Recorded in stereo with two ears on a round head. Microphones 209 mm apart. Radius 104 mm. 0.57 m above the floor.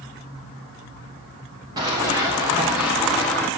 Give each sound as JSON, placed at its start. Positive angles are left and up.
{"t": 1.8, "sound": "running footsteps", "side_deg": -20, "distance_m": 4.5}